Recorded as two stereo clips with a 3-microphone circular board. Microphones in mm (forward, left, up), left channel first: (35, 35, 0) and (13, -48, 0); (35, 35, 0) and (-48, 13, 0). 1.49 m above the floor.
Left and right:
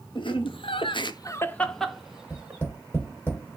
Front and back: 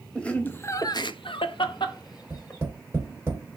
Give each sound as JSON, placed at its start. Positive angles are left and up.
{"t": 0.1, "sound": "laughter", "azimuth_deg": 95, "distance_m": 0.9}
{"t": 2.3, "sound": "tapping", "azimuth_deg": 140, "distance_m": 2.5}